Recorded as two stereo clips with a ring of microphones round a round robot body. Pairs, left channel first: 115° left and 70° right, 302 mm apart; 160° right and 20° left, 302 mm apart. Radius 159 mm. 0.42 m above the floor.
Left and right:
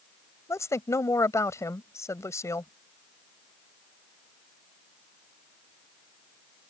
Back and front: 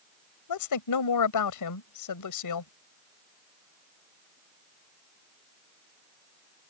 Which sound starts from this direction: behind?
A woman speaking, at 0.5 s.